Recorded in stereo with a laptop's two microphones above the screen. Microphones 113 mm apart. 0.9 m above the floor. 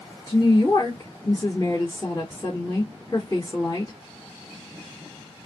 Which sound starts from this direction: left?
A woman speaking, at 0.3 s.